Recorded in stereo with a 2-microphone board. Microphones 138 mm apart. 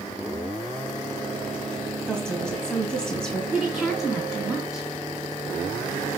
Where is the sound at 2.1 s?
5° left (ahead or behind), 2.5 m.